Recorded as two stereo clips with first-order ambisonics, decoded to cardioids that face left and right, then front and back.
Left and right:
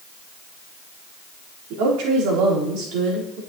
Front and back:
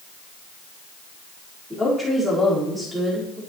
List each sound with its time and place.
1.7 s a woman speaking: 95° right, 4 m; by 3.4 s 105° right, 4 m